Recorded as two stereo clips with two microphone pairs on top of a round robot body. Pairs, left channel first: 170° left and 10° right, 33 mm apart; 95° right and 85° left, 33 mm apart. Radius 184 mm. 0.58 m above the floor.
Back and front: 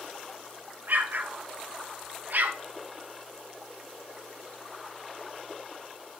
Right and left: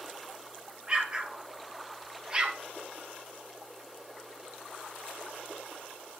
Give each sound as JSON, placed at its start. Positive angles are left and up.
{"t": 0.9, "sound": "an explosion", "azimuth_deg": 20, "distance_m": 1.4}